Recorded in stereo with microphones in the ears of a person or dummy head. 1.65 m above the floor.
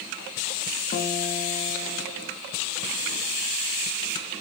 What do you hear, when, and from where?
0.9 s a guitar: 45° left (ahead or behind), 2.5 m